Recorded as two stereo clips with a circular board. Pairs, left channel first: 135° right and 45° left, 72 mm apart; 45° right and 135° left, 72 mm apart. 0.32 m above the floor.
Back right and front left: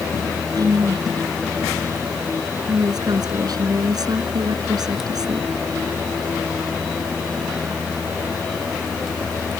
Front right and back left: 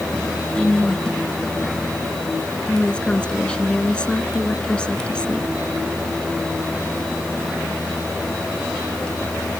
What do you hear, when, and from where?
0.6 s a woman speaking: 30° left